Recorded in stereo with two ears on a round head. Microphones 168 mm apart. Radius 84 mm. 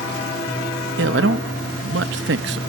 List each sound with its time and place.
1.0 s a man speaking: 65° right (ahead or behind)